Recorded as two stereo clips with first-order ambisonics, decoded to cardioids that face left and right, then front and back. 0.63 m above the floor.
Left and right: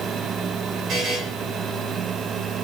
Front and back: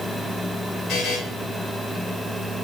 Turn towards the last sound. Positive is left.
turn(degrees=-40)